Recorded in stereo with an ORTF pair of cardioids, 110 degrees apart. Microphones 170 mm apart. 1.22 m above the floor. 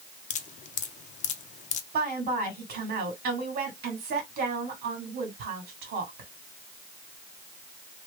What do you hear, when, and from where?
0.3 s dripping: 45° left, 0.7 m
1.9 s a woman speaking: 65° right, 2 m